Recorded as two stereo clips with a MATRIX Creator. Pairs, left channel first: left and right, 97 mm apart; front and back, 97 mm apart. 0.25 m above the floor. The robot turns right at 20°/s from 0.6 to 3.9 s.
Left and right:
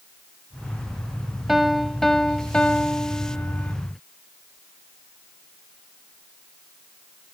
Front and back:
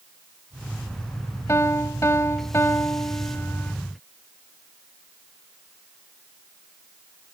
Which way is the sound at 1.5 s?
5° right.